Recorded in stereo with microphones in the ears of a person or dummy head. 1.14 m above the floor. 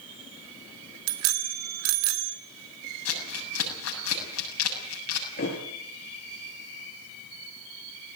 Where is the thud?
45° left (ahead or behind), 5 m.